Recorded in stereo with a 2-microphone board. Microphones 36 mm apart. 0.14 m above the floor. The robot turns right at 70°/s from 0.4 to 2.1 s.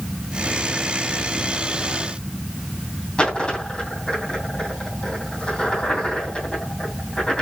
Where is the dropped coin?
30° left (ahead or behind), 2.5 m.